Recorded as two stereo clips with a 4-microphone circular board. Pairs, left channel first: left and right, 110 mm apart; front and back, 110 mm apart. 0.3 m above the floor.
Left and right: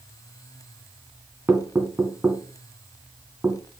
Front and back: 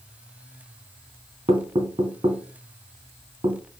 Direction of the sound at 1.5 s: 160° right.